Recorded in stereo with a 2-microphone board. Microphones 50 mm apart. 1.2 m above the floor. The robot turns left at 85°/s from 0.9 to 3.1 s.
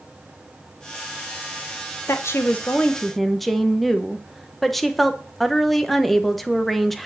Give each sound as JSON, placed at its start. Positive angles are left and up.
{"t": 2.1, "sound": "a woman speaking", "azimuth_deg": 90, "distance_m": 1.3}